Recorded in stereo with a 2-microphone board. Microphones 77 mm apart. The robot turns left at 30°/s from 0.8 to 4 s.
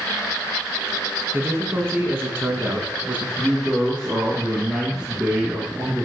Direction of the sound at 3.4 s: Centre (ahead or behind).